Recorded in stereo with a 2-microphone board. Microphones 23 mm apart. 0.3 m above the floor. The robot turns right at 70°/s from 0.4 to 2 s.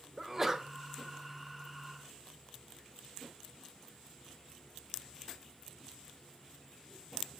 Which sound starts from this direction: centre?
A sneeze, at 0.2 s.